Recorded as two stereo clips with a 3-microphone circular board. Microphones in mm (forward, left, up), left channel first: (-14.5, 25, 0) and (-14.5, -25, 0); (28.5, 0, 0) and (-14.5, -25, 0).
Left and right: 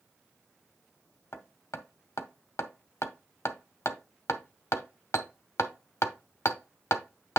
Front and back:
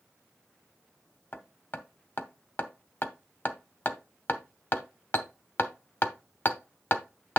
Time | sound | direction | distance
1.3 | hammering | 80° left | 1.0 m